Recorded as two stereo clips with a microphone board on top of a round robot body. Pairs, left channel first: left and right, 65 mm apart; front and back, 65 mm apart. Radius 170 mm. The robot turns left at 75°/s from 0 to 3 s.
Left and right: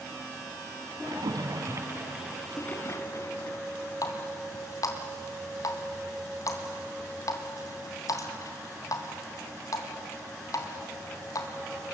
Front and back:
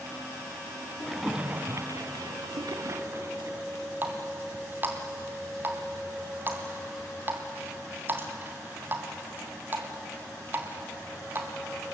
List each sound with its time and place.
1.1 s a splash: 85° right, 1.7 m; by 3.6 s 130° left, 1.7 m
4.0 s a running tap: 120° left, 2.5 m